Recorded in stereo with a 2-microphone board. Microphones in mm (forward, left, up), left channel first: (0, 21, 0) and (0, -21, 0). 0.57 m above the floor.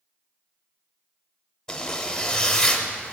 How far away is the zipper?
About 0.7 m.